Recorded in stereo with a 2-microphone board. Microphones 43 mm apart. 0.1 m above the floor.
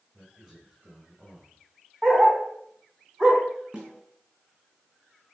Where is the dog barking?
5° right (ahead or behind), 6 m.